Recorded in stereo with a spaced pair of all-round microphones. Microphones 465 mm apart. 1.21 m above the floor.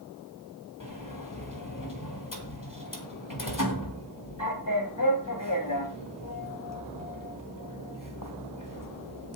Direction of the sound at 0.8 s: 40° left (ahead or behind).